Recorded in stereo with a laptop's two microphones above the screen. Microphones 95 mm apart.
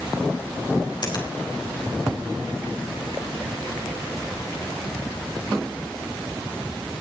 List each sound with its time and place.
1.0 s a finger snap: 50° left (ahead or behind), 5 m